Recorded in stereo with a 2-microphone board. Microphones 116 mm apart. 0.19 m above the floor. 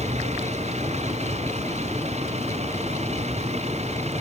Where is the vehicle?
70° right (ahead or behind).